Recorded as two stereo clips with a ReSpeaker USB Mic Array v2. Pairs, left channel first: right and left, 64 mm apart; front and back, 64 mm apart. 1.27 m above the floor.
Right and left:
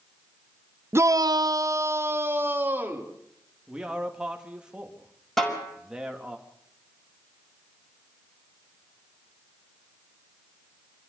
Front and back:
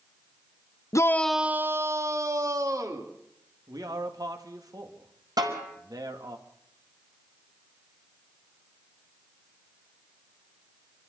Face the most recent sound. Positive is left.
turn(degrees=-175)